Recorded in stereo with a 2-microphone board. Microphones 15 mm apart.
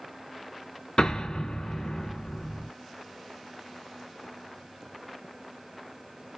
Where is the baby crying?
No baby crying in this recording.